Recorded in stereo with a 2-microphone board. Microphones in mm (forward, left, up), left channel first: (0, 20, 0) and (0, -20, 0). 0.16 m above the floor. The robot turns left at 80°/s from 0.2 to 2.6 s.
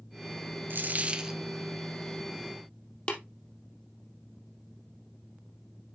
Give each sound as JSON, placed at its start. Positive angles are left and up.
{"t": 0.7, "sound": "a dropped coin", "azimuth_deg": -120, "distance_m": 1.0}
{"t": 3.1, "sound": "tapping", "side_deg": 30, "distance_m": 2.5}